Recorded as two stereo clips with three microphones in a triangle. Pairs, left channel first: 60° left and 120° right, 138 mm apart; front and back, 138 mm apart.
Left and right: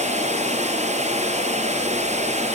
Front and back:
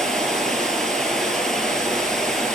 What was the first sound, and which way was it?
Running water, 85° right.